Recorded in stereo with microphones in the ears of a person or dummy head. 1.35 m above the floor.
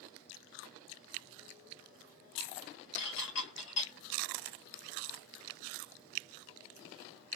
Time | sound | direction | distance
3.0 | dishes clattering | 65° left (ahead or behind) | 1.4 m